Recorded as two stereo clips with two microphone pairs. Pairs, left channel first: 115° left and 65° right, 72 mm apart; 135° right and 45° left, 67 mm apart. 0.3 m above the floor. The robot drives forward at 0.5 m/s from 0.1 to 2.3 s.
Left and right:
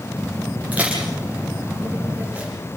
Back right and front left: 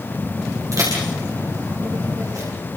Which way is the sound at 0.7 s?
5° left.